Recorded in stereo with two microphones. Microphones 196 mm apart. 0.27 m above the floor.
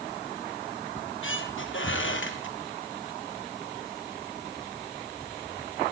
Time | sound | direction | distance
1.0 | a squeak | 80° left | 2.5 m